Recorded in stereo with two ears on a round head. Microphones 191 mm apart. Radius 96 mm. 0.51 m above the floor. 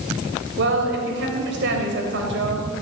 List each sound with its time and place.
0.6 s a woman speaking: 55° right (ahead or behind), 3 m